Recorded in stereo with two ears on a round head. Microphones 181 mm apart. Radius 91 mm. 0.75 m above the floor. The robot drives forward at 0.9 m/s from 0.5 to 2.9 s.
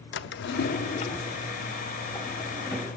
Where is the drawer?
60° left (ahead or behind), 0.6 m; by 2.9 s 10° left (ahead or behind), 2.5 m.